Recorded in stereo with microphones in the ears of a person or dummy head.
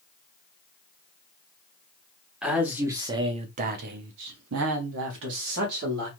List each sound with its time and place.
2.4 s a man speaking: 5° right (ahead or behind), 0.9 m; by 6.1 s 60° right (ahead or behind), 1.3 m